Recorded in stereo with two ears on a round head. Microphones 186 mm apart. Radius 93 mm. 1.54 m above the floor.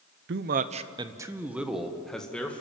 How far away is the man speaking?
About 0.8 m.